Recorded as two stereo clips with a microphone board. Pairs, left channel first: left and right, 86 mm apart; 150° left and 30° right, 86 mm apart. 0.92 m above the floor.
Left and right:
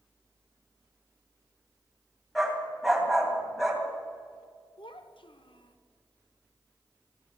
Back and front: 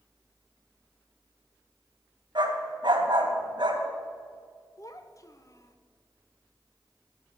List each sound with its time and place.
2.4 s a dog barking: straight ahead, 3 m
4.8 s a child speaking: 100° left, 1.3 m